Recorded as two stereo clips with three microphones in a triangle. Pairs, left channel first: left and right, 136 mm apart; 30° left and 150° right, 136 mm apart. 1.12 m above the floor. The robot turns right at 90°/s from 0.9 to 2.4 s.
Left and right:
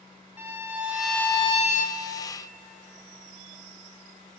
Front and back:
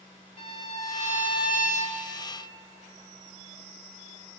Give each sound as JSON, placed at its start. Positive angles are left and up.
{"t": 0.4, "sound": "a violin", "azimuth_deg": -15, "distance_m": 1.9}